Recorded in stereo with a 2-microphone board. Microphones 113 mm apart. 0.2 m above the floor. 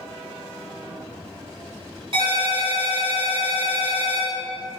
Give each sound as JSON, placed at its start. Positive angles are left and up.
{"t": 2.1, "sound": "a ringtone", "side_deg": -55, "distance_m": 1.3}